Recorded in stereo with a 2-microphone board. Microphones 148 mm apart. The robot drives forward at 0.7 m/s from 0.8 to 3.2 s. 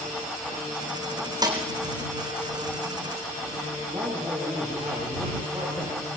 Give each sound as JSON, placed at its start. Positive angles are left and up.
{"t": 1.4, "sound": "a snare drum", "side_deg": -30, "distance_m": 4.0}
{"t": 3.9, "sound": "a man speaking", "side_deg": -15, "distance_m": 7.5}